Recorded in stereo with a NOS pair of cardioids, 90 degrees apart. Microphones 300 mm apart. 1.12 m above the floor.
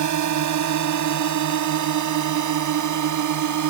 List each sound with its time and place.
0.0 s a drone: 70° right; by 3.7 s 75° right